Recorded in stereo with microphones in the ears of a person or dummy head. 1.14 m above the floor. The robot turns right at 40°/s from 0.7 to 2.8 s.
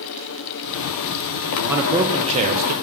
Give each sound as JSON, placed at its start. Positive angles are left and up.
{"t": 1.7, "sound": "a man speaking", "azimuth_deg": 180, "distance_m": 0.9}